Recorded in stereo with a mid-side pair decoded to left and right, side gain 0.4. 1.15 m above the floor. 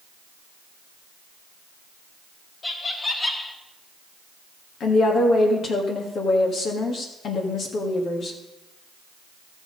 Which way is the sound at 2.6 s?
35° left.